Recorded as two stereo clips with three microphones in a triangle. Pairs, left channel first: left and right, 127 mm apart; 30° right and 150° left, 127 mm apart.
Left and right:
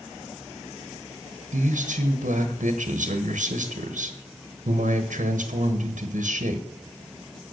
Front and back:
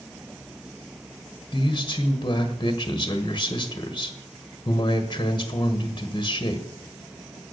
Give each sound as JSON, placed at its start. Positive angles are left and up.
{"t": 1.5, "sound": "a man speaking", "azimuth_deg": -85, "distance_m": 1.3}